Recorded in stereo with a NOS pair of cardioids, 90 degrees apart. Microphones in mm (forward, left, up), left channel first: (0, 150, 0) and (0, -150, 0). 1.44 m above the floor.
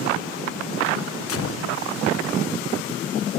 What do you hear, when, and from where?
1.3 s a gunshot: 50° left, 1.2 m